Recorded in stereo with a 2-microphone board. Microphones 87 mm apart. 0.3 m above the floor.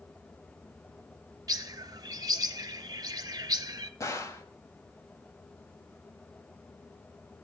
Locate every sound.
1.5 s a bird: 45° right (ahead or behind), 0.7 m
4.0 s a gunshot: 35° left (ahead or behind), 1.5 m